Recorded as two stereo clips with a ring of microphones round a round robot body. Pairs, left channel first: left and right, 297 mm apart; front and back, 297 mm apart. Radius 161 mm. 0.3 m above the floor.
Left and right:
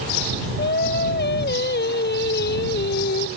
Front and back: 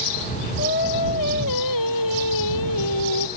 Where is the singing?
35° left.